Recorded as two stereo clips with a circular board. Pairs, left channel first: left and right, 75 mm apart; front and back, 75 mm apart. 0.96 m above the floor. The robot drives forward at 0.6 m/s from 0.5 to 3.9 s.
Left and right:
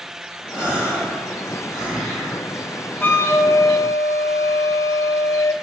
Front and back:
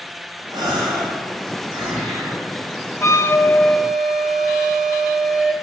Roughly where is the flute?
Ahead left.